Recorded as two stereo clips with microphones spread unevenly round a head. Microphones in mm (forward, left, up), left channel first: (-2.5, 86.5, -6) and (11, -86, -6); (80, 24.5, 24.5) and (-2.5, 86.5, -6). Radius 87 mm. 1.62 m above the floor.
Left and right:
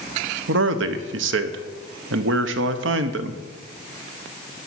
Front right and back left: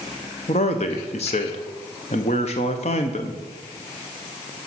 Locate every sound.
0.5 s a man speaking: 70° right, 0.8 m